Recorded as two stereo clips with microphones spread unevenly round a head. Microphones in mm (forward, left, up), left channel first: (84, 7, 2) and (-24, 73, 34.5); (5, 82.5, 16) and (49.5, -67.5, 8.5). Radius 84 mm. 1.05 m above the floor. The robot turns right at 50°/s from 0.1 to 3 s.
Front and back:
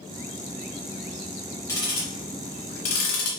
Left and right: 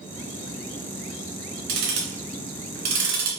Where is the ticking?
110° right, 2 m; by 3.3 s 45° right, 2 m.